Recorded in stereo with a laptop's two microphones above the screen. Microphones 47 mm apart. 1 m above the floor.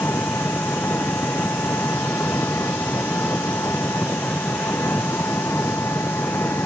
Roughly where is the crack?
No crack in this recording.